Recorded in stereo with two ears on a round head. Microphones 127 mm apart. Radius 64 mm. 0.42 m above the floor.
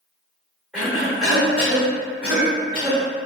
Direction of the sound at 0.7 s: 5° right (ahead or behind).